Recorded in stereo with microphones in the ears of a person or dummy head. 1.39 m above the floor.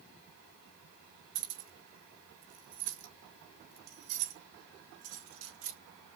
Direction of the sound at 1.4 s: 40° right (ahead or behind).